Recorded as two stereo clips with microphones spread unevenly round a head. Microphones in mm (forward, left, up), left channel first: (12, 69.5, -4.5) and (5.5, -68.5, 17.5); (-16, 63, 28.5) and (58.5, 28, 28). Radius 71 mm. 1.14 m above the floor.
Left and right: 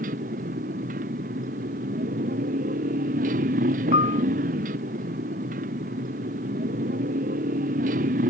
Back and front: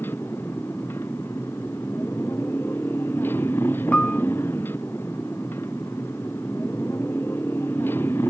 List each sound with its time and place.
0.0 s a motorcycle: 130° right
3.9 s a piano: 80° left